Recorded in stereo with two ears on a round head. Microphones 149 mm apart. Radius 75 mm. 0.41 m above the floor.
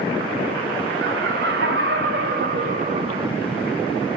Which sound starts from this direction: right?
Laughter, at 1.0 s.